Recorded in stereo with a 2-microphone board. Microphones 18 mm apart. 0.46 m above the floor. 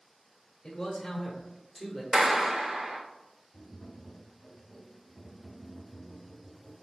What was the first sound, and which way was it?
A man speaking, 25° left (ahead or behind).